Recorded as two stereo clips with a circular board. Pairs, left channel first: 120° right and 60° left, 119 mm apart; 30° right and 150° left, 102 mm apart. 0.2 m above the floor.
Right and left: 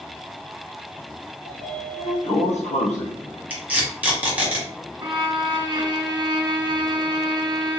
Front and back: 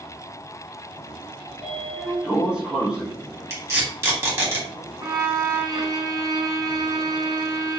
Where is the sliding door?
130° right, 0.9 m.